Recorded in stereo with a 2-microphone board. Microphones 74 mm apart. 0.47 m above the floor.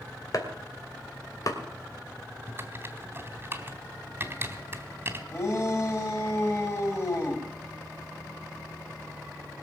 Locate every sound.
0.3 s chopping: 50° left (ahead or behind), 2.5 m
2.5 s typing on a keyboard: 30° right (ahead or behind), 1.8 m
5.3 s a shout: 35° left (ahead or behind), 3.5 m